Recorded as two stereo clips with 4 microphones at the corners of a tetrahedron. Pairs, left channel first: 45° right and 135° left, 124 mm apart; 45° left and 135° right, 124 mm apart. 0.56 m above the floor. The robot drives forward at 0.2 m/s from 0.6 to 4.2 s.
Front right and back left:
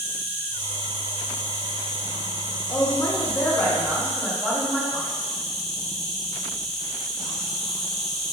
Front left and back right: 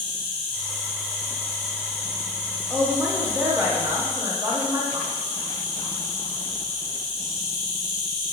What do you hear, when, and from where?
0.0 s an insect: 95° right, 1.8 m; by 8.3 s 135° right, 2.0 m
2.7 s a woman speaking: 60° right, 0.7 m; by 5.2 s 120° right, 0.7 m